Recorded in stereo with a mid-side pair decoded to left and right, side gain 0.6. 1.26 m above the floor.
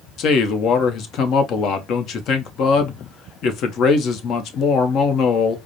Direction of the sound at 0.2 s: 55° left.